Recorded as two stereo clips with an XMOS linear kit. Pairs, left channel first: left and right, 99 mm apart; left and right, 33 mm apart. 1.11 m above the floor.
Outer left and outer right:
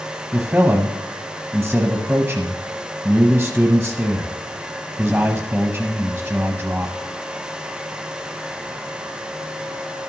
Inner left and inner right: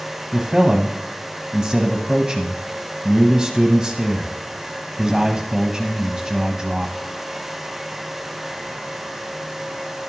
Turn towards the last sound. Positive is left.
turn(degrees=-10)  # may be behind; listen again after turning